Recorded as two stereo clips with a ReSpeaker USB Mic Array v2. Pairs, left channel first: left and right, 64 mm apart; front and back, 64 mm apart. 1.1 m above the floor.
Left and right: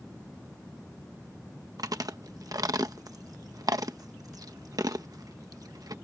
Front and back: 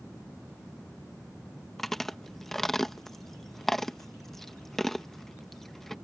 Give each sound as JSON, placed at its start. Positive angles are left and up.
{"t": 1.8, "sound": "chewing", "azimuth_deg": -85}